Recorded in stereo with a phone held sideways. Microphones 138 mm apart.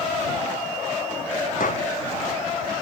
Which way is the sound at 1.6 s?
75° left (ahead or behind).